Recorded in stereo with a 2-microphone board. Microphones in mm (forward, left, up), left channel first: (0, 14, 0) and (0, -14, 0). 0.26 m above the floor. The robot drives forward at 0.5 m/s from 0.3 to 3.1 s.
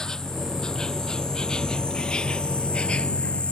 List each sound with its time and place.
0.0 s an insect: 20° left (ahead or behind); by 3.5 s 40° left (ahead or behind)